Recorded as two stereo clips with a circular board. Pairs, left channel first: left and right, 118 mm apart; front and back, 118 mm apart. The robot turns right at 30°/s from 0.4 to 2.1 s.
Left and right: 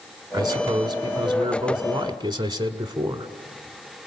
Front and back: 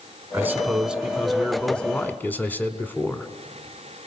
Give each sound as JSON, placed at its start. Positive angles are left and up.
{"t": 0.3, "sound": "a man speaking", "azimuth_deg": -120, "distance_m": 1.4}